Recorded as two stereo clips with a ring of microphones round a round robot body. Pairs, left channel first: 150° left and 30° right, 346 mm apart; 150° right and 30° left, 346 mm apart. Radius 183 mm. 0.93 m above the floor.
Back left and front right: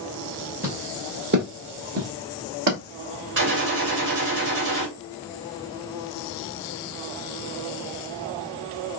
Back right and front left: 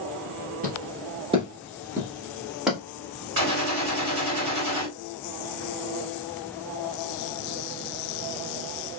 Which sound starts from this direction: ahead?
A gunshot, at 3.4 s.